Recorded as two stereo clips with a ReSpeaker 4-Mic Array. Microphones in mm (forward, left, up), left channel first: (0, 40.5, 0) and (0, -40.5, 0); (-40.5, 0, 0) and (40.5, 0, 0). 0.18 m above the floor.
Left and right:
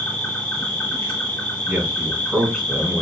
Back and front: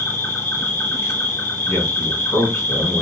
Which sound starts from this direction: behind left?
An insect, at 0.0 s.